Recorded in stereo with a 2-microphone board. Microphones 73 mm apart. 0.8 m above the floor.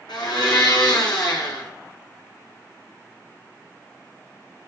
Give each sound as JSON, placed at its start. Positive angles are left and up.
{"t": 0.1, "sound": "a blender", "side_deg": 85, "distance_m": 3.5}